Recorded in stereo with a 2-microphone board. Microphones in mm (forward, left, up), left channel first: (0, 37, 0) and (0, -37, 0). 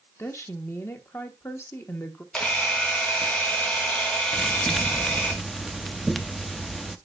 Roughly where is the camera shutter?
Centre.